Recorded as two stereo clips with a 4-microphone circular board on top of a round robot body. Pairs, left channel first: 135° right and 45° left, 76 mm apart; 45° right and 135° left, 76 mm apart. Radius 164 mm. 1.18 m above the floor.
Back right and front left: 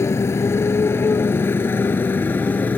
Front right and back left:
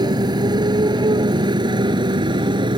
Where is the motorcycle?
165° left; by 2.8 s 155° left.